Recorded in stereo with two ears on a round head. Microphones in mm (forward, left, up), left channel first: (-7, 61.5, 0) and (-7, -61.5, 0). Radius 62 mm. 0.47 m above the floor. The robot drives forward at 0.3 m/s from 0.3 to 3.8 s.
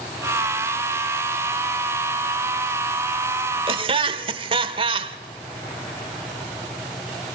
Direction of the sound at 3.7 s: 40° right (ahead or behind).